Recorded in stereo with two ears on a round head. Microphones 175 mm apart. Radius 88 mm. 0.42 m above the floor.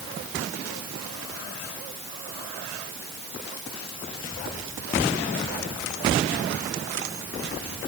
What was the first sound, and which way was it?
Only background noise.